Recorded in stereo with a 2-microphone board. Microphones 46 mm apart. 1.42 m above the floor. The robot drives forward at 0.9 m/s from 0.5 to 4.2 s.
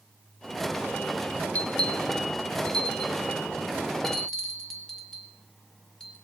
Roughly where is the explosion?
No explosion in this recording.